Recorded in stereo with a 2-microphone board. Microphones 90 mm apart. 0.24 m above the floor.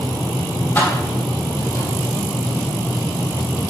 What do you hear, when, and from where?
0.8 s keys jangling: 20° left (ahead or behind), 4.5 m; by 1.9 s 25° left (ahead or behind), 5.5 m